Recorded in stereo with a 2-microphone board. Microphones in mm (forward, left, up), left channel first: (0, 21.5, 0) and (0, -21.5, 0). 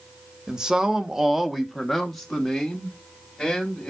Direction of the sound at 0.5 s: 20° right (ahead or behind).